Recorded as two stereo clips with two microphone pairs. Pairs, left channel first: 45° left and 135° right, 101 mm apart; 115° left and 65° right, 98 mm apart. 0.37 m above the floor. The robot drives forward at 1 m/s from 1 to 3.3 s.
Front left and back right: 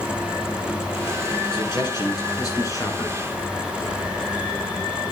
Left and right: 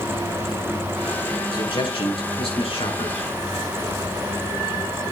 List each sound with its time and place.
1.5 s a man speaking: 85° left, 4.5 m; by 3.3 s 110° left, 5 m